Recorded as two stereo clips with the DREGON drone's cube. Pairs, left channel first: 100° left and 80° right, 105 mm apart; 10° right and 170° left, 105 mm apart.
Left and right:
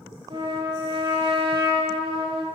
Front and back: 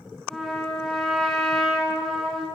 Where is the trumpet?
95° right, 2.0 m.